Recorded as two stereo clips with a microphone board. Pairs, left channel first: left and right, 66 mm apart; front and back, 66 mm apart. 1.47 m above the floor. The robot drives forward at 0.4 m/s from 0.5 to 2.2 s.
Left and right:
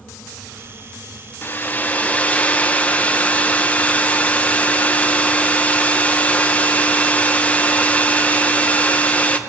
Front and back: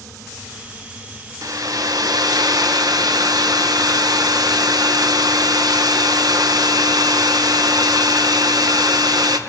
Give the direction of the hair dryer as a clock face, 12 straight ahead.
7 o'clock.